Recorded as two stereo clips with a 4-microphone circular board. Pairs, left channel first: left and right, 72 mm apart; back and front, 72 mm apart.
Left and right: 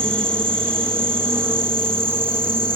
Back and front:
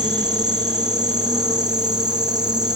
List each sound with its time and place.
0.0 s an insect: 30° right, 2.5 m